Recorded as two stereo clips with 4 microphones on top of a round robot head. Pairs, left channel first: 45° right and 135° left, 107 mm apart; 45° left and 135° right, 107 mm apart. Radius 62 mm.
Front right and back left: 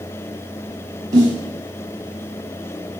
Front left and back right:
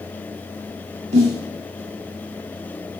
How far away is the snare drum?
About 7.5 m.